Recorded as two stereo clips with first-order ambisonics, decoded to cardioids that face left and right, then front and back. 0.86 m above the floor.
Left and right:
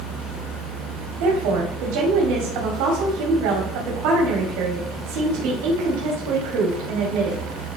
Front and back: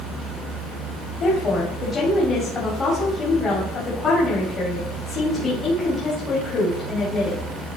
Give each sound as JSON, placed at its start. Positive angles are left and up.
{"t": 1.2, "sound": "a woman speaking", "azimuth_deg": -70, "distance_m": 2.0}